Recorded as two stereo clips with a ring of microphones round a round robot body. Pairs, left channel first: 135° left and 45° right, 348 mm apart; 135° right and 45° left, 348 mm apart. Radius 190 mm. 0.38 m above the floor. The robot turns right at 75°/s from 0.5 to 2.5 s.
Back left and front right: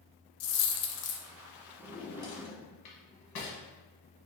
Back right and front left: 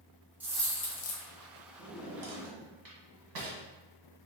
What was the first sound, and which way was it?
A dropped coin, 130° left.